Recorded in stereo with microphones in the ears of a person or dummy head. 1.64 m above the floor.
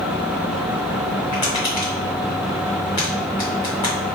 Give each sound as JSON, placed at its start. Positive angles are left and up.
{"t": 1.3, "sound": "tapping", "side_deg": 10, "distance_m": 1.8}